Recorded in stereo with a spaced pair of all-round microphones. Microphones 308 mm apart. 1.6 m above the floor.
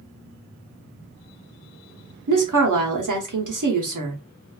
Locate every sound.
2.3 s a woman speaking: 80° right, 0.8 m